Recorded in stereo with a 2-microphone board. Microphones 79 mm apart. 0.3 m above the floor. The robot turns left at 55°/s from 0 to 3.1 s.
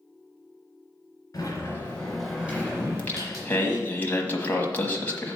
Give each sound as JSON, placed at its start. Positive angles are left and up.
{"t": 1.3, "sound": "a sliding door", "azimuth_deg": 50, "distance_m": 3.0}
{"t": 2.8, "sound": "singing", "side_deg": 10, "distance_m": 1.2}